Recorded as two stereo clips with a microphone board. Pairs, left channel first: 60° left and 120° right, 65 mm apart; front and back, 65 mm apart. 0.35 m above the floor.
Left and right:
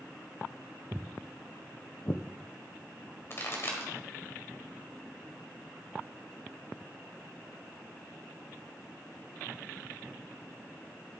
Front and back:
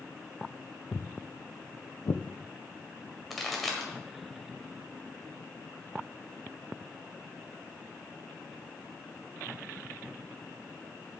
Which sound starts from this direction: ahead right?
Footsteps, at 0.9 s.